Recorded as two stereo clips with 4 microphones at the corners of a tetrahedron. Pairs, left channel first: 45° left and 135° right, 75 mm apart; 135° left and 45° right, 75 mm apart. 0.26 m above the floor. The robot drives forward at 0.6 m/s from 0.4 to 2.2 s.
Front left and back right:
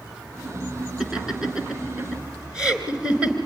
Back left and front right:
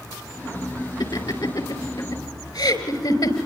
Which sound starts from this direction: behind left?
Laughter, at 1.0 s.